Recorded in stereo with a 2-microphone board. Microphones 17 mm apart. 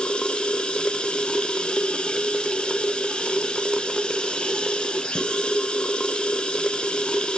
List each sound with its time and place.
0.0 s running water: 80° left, 0.8 m